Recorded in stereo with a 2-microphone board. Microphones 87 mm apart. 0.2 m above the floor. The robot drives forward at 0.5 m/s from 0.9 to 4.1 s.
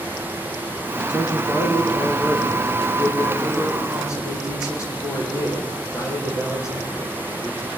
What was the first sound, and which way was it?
A man speaking, 40° left (ahead or behind).